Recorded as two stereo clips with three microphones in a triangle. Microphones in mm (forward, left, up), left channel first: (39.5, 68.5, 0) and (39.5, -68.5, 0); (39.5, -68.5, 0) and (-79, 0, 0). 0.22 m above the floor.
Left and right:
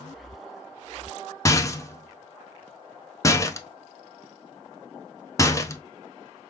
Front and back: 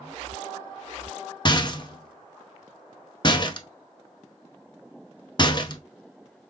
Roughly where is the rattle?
Ahead.